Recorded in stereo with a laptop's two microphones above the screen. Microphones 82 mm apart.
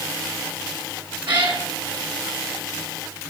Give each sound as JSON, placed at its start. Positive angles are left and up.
{"t": 1.3, "sound": "a cat meowing", "side_deg": -75, "distance_m": 4.5}